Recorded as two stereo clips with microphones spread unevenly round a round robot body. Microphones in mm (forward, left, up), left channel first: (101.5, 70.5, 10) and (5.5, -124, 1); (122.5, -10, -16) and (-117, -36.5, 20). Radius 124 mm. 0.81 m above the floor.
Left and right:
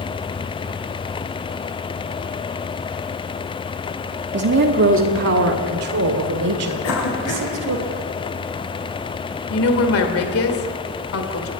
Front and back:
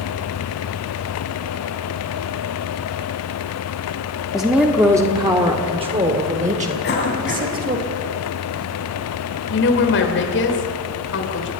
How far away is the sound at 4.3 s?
About 1.4 m.